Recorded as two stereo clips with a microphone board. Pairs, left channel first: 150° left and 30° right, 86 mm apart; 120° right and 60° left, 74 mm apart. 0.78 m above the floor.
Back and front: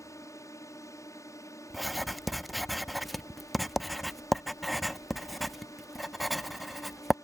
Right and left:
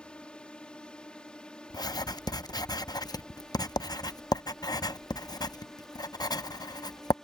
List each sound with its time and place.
0.0 s a drone: 170° left; by 7.2 s 160° left
1.7 s writing: 120° right